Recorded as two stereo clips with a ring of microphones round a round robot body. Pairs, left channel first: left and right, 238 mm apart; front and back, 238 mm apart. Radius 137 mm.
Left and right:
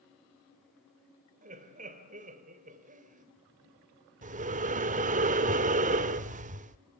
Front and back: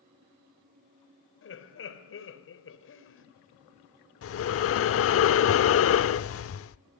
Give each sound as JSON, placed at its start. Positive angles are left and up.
{"t": 1.4, "sound": "laughter", "azimuth_deg": -30, "distance_m": 2.5}
{"t": 4.2, "sound": "breathing", "azimuth_deg": -30, "distance_m": 0.8}